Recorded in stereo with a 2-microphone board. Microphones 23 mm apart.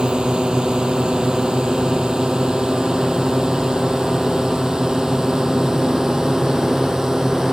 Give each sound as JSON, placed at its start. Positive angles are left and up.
{"t": 0.0, "sound": "a drone", "side_deg": -40}